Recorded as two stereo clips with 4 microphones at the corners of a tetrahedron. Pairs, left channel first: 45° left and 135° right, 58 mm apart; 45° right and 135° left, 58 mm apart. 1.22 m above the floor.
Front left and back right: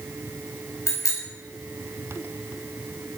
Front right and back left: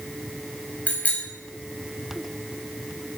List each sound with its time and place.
0.9 s a bicycle bell: 15° left, 5.5 m